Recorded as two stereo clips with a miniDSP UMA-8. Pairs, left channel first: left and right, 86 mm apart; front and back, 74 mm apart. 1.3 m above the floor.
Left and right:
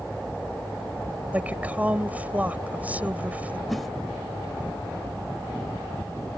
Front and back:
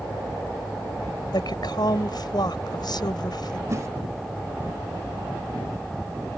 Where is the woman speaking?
20° right.